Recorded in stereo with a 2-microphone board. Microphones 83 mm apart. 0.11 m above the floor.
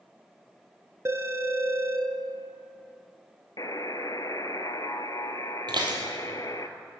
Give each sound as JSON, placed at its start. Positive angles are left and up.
{"t": 1.1, "sound": "a phone ringing", "side_deg": -30, "distance_m": 0.9}
{"t": 3.6, "sound": "a buzzer", "side_deg": 50, "distance_m": 0.6}
{"t": 5.7, "sound": "dishes clattering", "side_deg": -60, "distance_m": 1.9}